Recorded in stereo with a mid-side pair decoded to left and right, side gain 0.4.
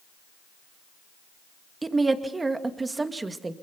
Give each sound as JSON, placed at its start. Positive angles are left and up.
{"t": 1.8, "sound": "a woman speaking", "azimuth_deg": -25, "distance_m": 2.0}